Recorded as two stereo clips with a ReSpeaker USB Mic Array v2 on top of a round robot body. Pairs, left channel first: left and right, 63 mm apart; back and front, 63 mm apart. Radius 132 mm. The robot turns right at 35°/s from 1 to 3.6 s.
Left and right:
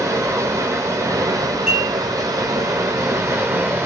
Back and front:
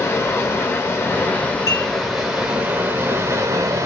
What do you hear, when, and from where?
0.0 s running water: 130° right, 1.0 m; by 3.9 s 40° right, 1.0 m
1.7 s dishes clattering: 165° right, 1.9 m; by 1.9 s 155° right, 1.9 m